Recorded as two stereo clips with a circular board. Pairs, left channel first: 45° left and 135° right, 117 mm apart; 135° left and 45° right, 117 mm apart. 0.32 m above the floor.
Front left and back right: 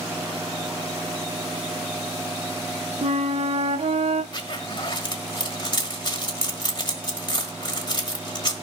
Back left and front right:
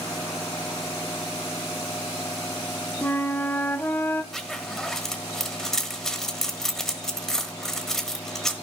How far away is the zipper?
About 1.3 m.